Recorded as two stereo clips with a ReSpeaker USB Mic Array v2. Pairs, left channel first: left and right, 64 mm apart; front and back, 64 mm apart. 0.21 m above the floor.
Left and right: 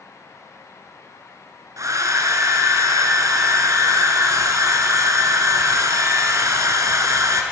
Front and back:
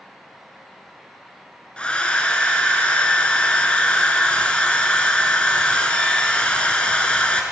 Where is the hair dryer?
70° right, 0.9 m.